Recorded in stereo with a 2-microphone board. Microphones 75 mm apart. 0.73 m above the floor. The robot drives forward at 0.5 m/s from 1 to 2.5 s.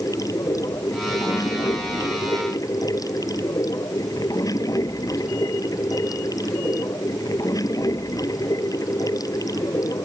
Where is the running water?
50° left (ahead or behind); by 10.1 s 55° left (ahead or behind).